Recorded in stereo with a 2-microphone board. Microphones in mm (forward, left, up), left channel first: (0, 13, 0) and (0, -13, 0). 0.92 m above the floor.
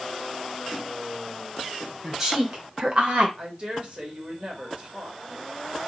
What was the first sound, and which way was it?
A woman speaking, 20° right (ahead or behind).